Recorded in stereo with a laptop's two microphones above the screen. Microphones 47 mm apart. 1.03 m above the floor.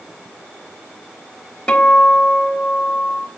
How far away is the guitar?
About 3 m.